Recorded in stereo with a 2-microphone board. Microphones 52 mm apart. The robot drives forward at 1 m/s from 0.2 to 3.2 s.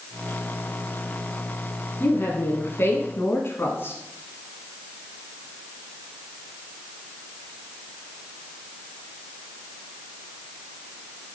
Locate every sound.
2.0 s a woman speaking: 45° left (ahead or behind), 1.8 m